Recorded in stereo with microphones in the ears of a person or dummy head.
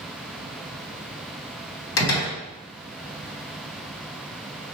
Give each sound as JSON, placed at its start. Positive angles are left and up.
{"t": 2.0, "sound": "a door slam", "side_deg": 70, "distance_m": 1.0}